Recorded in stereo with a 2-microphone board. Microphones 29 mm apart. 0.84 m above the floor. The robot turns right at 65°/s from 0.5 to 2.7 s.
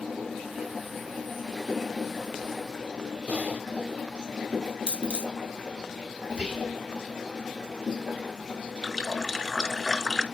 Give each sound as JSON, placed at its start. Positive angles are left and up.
{"t": 3.3, "sound": "typing on a keyboard", "side_deg": -65, "distance_m": 0.7}
{"t": 4.9, "sound": "a dropped coin", "side_deg": -45, "distance_m": 2.5}
{"t": 6.3, "sound": "whispering", "side_deg": -30, "distance_m": 2.5}
{"t": 8.8, "sound": "a running tap", "side_deg": 15, "distance_m": 1.6}